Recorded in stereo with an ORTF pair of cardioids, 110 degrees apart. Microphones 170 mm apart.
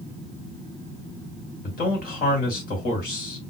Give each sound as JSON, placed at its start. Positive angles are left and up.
{"t": 1.6, "sound": "a man speaking", "azimuth_deg": 60, "distance_m": 2.5}